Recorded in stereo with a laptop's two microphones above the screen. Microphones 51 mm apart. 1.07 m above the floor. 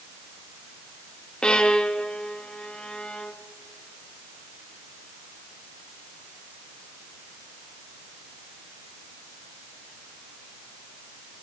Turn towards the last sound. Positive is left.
turn(degrees=15)  # may be behind; listen again after turning